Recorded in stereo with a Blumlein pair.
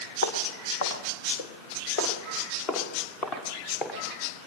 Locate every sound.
0.2 s footsteps: 60° left, 4 m; by 4.0 s 25° left, 6 m